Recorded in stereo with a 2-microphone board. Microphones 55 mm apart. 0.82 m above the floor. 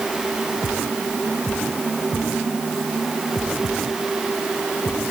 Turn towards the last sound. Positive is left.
No sound to turn to.